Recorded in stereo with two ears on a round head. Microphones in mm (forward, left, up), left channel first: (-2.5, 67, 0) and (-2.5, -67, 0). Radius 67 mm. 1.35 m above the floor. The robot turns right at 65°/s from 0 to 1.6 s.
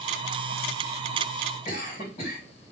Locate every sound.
1.6 s a cough: 50° left (ahead or behind), 3 m